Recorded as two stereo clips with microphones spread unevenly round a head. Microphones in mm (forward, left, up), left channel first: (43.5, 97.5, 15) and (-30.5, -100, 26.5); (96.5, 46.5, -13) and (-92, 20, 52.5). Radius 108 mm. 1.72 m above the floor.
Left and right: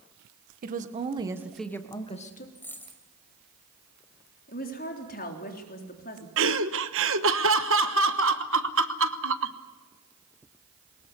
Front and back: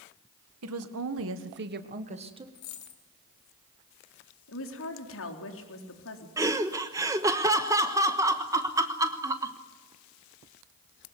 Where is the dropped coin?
15° right, 3 m.